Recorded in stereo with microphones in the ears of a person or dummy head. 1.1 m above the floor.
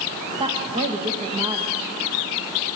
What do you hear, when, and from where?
0.4 s a woman speaking: 25° right (ahead or behind), 1.4 m